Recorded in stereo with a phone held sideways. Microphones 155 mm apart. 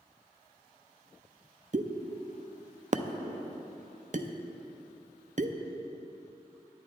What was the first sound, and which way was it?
A pop, 55° right (ahead or behind).